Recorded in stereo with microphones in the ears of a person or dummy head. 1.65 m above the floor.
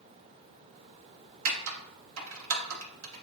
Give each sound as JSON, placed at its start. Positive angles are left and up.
{"t": 1.4, "sound": "typing on a keyboard", "side_deg": -85, "distance_m": 1.0}